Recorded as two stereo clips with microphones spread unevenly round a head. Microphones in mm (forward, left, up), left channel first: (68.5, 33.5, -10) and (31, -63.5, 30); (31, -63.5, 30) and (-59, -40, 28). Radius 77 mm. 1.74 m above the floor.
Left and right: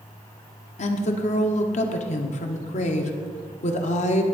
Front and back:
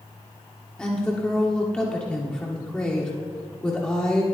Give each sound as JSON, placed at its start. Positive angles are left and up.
{"t": 0.8, "sound": "a woman speaking", "azimuth_deg": 70, "distance_m": 1.2}